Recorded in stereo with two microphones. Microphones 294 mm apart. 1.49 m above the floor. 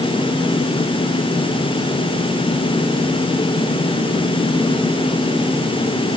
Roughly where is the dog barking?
I don't hear a dog barking.